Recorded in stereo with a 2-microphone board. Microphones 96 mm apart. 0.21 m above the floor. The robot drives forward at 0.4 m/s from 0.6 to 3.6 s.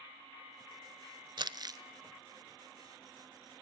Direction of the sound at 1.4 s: 50° right (ahead or behind).